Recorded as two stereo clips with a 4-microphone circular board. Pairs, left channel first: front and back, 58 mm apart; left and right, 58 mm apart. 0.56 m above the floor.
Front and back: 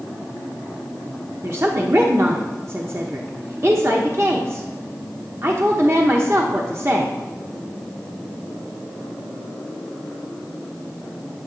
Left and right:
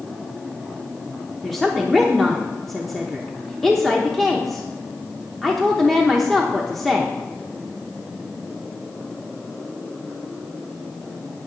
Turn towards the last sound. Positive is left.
turn(degrees=175)